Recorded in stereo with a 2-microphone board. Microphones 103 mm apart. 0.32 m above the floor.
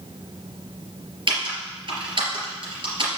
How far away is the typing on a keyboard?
About 3.5 m.